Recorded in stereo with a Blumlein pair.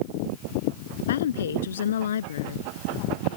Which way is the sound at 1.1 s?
60° left.